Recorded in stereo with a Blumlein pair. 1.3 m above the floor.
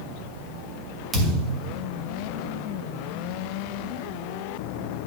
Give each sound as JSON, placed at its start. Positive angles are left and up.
{"t": 1.1, "sound": "a thud", "azimuth_deg": -15, "distance_m": 3.0}